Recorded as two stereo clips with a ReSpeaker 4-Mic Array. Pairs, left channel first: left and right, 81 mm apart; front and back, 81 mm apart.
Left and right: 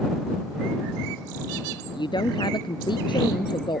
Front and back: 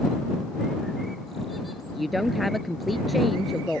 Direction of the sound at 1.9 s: 90° left.